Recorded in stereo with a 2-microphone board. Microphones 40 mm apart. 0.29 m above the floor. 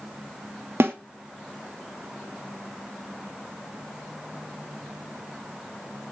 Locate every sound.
0.8 s a snare drum: 70° right (ahead or behind), 1.0 m